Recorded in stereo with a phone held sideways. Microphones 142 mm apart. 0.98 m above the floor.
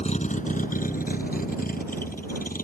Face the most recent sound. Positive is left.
turn(degrees=80)